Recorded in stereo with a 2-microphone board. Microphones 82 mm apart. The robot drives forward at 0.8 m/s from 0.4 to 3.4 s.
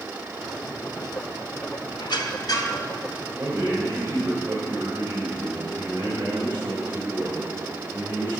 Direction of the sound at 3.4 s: 25° right (ahead or behind).